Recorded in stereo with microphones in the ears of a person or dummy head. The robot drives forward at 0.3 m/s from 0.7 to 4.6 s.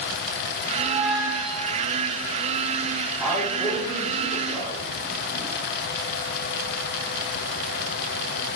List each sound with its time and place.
0.8 s a squeak: 25° right (ahead or behind), 1.5 m; by 1.9 s 30° right (ahead or behind), 1.2 m
3.2 s a man speaking: centre (ahead or behind), 1.0 m